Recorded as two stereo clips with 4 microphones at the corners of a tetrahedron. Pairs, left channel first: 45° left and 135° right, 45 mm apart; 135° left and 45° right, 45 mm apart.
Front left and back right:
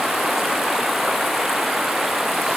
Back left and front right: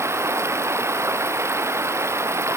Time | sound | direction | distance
0.0 | running water | 55° right | ?